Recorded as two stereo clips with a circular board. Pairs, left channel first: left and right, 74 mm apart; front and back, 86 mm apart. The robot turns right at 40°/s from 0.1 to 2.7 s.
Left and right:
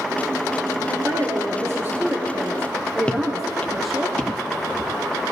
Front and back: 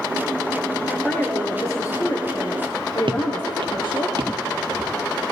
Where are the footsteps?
165° left, 1.3 m.